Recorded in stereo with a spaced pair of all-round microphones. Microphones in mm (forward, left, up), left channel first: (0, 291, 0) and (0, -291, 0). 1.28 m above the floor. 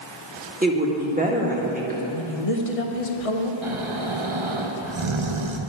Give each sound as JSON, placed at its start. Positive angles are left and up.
{"t": 0.6, "sound": "a woman speaking", "side_deg": -15, "distance_m": 1.9}
{"t": 2.1, "sound": "a woman speaking", "side_deg": 70, "distance_m": 1.2}
{"t": 3.6, "sound": "snoring", "side_deg": -55, "distance_m": 0.9}